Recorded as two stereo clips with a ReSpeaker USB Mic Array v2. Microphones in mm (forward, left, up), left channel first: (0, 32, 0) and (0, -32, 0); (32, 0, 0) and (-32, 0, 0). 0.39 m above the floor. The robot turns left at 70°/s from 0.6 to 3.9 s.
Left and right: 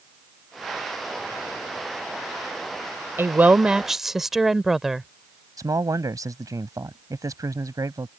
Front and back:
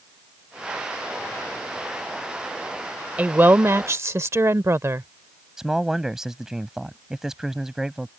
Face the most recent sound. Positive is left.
turn(degrees=-100)